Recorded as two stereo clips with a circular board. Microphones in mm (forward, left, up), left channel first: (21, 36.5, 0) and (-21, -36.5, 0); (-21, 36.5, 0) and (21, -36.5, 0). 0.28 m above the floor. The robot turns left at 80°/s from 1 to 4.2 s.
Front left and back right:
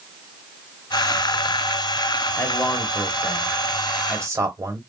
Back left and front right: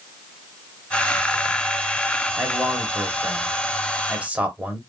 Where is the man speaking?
30° left, 1.2 m; by 4.8 s 115° right, 1.2 m.